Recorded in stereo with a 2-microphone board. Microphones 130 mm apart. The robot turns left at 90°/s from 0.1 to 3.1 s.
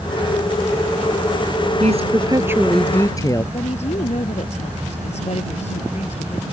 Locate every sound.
1.8 s a woman speaking: 95° right; by 3.4 s 145° left
3.5 s a woman speaking: 60° left (ahead or behind)